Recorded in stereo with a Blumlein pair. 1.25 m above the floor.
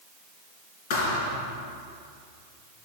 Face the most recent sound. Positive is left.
turn(degrees=45)